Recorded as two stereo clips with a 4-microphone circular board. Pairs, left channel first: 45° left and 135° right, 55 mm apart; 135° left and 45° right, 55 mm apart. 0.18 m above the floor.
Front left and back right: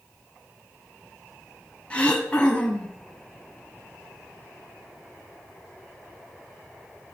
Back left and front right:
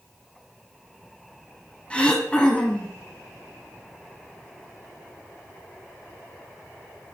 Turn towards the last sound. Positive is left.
turn(degrees=90)